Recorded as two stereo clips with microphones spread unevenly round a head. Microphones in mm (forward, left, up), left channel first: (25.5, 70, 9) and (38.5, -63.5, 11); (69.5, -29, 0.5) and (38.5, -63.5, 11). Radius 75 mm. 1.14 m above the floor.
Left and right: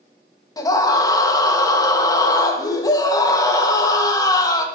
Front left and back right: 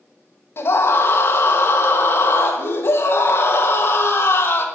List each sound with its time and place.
0.6 s a scream: 35° left, 1.9 m